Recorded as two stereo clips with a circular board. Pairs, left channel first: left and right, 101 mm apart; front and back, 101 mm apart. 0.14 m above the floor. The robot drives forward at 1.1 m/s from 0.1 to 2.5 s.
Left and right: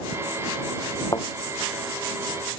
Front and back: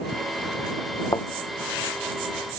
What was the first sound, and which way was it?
A thud, 45° left.